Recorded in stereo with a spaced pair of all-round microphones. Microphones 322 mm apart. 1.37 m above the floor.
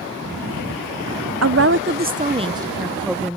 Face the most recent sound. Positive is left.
turn(degrees=5)  # may be behind; listen again after turning